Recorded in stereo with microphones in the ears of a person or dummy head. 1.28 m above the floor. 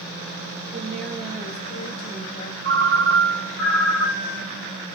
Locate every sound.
0.7 s a woman speaking: 20° right (ahead or behind), 1.3 m; by 2.5 s 45° left (ahead or behind), 0.9 m
2.6 s a ringtone: 70° right (ahead or behind), 1.6 m